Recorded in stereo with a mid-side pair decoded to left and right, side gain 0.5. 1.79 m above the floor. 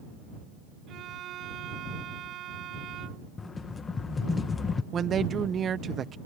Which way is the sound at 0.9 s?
70° right.